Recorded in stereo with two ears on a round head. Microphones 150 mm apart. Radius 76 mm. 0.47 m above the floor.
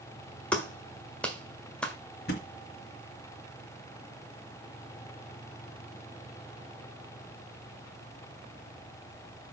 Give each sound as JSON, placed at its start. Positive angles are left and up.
{"t": 0.5, "sound": "a clap", "side_deg": 5, "distance_m": 1.5}
{"t": 2.3, "sound": "a thud", "side_deg": 60, "distance_m": 2.5}